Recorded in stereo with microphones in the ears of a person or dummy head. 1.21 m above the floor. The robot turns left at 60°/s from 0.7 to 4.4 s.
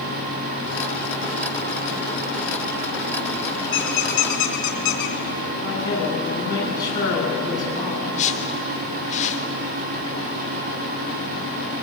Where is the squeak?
45° left (ahead or behind), 2.0 m; by 5.2 s 70° left (ahead or behind), 2.0 m.